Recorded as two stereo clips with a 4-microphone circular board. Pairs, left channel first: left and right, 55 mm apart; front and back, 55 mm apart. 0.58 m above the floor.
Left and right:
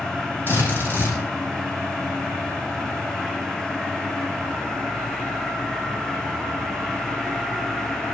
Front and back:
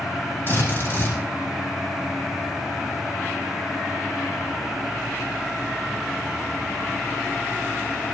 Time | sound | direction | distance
0.5 | a drill | 45° left | 9 m